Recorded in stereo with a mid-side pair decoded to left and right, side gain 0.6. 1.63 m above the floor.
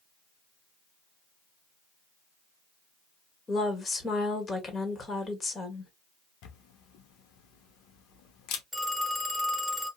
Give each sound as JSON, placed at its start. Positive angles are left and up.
{"t": 3.5, "sound": "a woman speaking", "azimuth_deg": 30, "distance_m": 1.4}
{"t": 6.4, "sound": "a camera shutter", "azimuth_deg": 70, "distance_m": 0.8}
{"t": 8.7, "sound": "a phone ringing", "azimuth_deg": 15, "distance_m": 1.7}